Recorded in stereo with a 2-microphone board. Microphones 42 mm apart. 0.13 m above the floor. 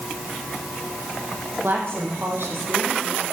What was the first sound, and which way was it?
A woman speaking, 70° right (ahead or behind).